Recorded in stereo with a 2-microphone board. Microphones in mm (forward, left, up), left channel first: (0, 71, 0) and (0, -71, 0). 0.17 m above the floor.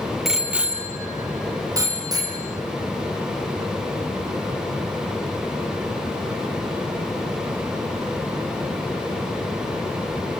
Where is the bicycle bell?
Centre (ahead or behind), 3 m; by 2.4 s 25° right (ahead or behind), 5.5 m.